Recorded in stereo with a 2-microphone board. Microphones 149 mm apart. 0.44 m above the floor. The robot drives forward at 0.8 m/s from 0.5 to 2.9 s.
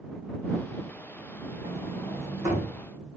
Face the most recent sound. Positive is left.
turn(degrees=-20)  # may be behind; listen again after turning